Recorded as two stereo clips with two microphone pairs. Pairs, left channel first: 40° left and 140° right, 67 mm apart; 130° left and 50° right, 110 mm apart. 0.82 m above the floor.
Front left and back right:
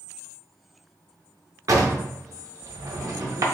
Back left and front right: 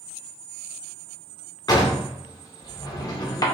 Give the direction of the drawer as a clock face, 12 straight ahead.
6 o'clock.